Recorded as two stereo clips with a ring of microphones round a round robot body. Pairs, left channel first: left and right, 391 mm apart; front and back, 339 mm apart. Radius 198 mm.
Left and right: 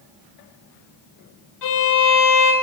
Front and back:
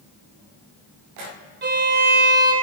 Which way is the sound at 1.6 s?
125° left.